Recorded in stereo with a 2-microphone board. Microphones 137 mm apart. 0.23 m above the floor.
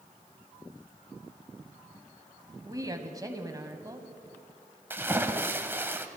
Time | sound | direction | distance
2.6 | a woman speaking | 25° right (ahead or behind) | 1.4 m
4.9 | a splash | 15° right (ahead or behind) | 0.8 m